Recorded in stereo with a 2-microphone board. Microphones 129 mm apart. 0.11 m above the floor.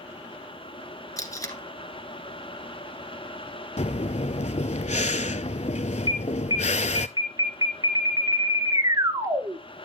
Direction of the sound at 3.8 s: 60° left (ahead or behind).